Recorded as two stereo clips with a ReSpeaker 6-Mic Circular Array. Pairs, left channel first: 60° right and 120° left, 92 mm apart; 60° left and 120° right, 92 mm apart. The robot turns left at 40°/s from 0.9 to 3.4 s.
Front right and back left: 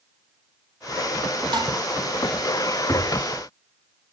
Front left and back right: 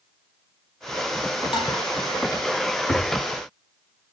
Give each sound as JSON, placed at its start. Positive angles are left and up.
{"t": 1.5, "sound": "dishes clattering", "azimuth_deg": 85, "distance_m": 4.0}
{"t": 2.9, "sound": "a thud", "azimuth_deg": 15, "distance_m": 7.0}